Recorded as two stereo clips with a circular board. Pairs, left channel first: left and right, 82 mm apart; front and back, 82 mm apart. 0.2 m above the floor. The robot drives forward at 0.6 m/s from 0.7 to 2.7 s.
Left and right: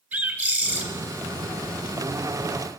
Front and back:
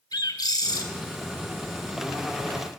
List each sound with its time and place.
0.1 s a bird: 20° right, 1.8 m